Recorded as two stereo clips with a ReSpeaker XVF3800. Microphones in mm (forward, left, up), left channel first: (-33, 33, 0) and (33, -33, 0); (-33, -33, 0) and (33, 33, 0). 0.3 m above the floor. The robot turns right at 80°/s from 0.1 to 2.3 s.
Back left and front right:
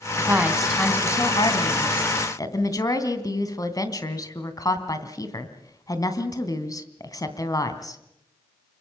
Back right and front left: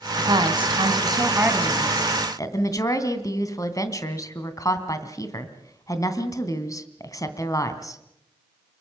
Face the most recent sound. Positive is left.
turn(degrees=180)